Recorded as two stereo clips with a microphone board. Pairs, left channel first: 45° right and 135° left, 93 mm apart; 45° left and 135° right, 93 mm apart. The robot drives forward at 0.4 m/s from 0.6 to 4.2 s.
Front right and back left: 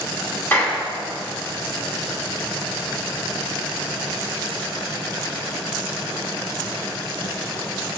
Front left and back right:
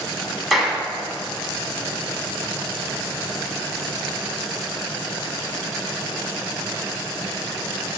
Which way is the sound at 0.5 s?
45° right.